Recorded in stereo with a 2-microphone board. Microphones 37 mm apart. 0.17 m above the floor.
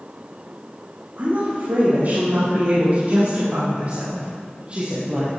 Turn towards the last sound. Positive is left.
turn(degrees=-30)  # may be behind; listen again after turning